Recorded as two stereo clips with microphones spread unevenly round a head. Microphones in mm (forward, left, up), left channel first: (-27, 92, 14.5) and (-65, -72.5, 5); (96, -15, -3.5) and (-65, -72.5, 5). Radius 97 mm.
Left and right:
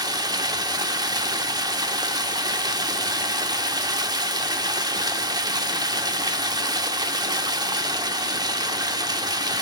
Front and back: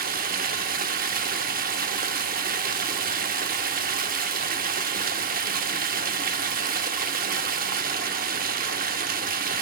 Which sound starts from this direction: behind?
Running water, at 0.0 s.